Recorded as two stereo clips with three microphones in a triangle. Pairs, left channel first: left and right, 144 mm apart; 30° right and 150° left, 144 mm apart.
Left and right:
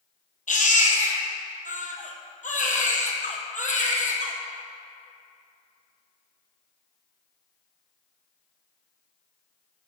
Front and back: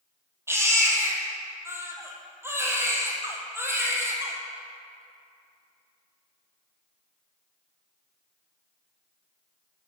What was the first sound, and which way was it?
A baby crying, 80° left.